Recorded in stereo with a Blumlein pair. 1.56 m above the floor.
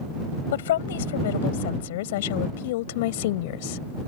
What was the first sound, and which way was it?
A woman speaking, 60° left.